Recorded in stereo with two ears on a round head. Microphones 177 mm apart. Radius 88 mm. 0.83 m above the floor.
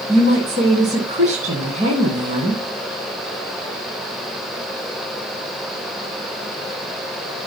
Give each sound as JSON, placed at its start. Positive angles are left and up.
{"t": 0.1, "sound": "a woman speaking", "side_deg": -40, "distance_m": 10.0}